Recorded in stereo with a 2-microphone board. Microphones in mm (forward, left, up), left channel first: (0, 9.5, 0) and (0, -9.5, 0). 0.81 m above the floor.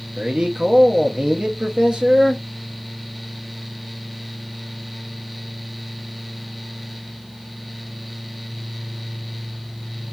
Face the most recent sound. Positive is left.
turn(degrees=-45)  # may be behind; listen again after turning